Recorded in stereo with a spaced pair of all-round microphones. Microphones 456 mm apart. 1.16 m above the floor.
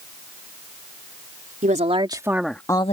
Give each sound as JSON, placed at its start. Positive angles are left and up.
{"t": 1.6, "sound": "a woman speaking", "side_deg": -15}